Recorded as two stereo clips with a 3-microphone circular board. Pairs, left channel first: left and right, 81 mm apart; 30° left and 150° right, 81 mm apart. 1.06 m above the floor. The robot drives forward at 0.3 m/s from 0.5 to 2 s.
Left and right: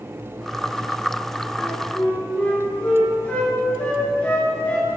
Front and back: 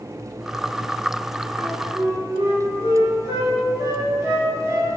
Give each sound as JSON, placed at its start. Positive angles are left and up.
{"t": 1.6, "sound": "a flute", "azimuth_deg": 160, "distance_m": 2.5}